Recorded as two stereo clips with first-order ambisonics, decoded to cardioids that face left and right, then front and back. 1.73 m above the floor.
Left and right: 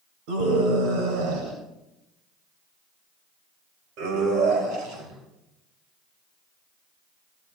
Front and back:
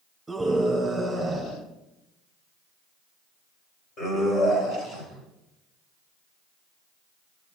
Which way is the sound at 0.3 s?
100° right.